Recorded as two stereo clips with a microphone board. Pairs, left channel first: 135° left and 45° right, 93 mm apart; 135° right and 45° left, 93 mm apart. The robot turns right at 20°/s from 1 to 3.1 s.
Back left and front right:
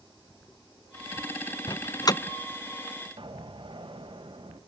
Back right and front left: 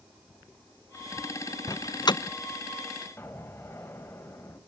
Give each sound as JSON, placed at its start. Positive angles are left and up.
{"t": 1.7, "sound": "a door slam", "azimuth_deg": 175, "distance_m": 0.6}
{"t": 3.2, "sound": "an explosion", "azimuth_deg": -70, "distance_m": 3.5}